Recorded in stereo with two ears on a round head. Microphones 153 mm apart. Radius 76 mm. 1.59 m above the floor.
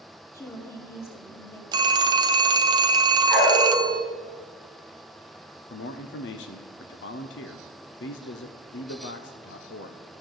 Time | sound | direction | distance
0.3 | a woman speaking | 15° left (ahead or behind) | 2 m
1.7 | a phone ringing | 25° right (ahead or behind) | 0.5 m
3.3 | a dog barking | 10° left (ahead or behind) | 4.5 m
5.7 | a man speaking | 70° left (ahead or behind) | 0.7 m